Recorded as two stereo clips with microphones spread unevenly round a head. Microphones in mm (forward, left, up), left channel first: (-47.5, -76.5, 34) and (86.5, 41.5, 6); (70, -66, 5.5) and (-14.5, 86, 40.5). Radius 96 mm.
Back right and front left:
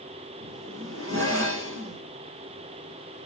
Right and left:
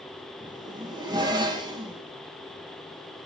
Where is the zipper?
50° left, 5 m.